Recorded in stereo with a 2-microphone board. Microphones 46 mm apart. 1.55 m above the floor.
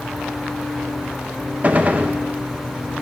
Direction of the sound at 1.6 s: 35° right (ahead or behind).